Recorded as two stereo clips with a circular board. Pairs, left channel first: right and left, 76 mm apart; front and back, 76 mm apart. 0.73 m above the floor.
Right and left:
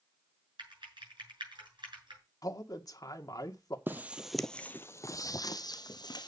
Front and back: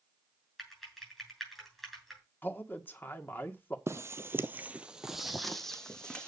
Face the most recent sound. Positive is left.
turn(degrees=-80)